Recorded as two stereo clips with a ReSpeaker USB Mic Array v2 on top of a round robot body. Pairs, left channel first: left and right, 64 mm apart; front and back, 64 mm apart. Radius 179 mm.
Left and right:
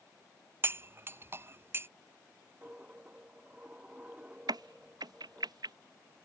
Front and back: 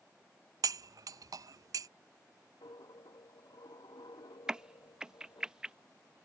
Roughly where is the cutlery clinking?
Behind right.